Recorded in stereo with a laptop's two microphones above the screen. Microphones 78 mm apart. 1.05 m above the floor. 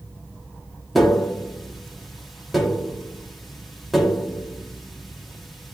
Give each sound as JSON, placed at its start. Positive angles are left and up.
{"t": 0.9, "sound": "tapping", "side_deg": 0, "distance_m": 1.4}